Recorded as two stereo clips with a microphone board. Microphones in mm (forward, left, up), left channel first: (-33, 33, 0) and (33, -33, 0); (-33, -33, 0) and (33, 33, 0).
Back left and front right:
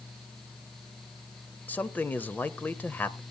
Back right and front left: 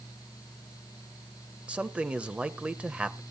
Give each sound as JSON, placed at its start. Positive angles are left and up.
{"t": 1.7, "sound": "a man speaking", "azimuth_deg": 100, "distance_m": 0.9}